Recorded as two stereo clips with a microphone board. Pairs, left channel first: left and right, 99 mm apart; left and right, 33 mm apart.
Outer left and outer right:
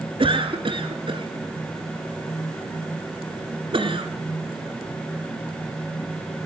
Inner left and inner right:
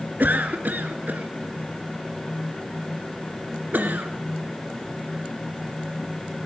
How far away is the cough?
About 2 m.